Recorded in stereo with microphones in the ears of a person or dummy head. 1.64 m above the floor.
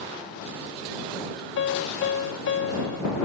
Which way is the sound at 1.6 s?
70° left (ahead or behind).